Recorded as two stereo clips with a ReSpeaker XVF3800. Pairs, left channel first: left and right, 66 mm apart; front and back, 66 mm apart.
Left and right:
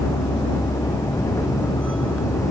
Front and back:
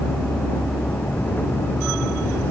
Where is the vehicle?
70° left; by 2.5 s 55° left.